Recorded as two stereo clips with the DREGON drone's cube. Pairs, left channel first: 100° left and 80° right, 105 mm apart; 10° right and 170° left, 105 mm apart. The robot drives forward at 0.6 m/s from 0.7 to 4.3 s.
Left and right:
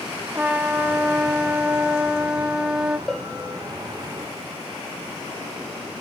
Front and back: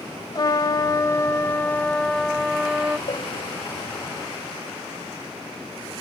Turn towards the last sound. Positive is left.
turn(degrees=20)